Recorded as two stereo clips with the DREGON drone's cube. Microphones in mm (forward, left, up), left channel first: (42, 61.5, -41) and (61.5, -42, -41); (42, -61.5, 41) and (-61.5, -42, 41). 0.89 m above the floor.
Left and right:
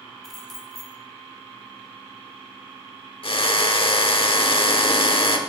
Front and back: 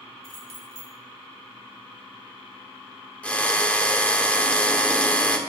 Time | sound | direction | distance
0.2 | keys jangling | 15° left | 2.5 m
3.2 | a drill | 65° left | 1.3 m